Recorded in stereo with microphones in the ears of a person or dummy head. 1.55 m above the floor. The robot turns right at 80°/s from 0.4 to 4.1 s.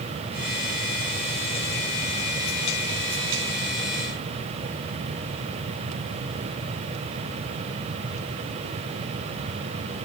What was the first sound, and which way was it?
Only background noise.